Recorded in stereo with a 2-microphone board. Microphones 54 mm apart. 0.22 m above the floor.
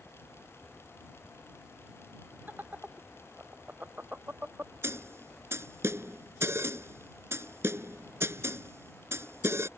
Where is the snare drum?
55° right (ahead or behind).